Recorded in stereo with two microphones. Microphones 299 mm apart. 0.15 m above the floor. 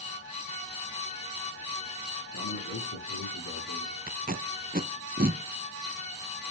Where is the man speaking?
55° left (ahead or behind), 3.5 m.